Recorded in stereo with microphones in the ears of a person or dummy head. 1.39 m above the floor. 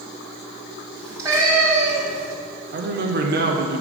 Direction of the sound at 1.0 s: 15° right (ahead or behind).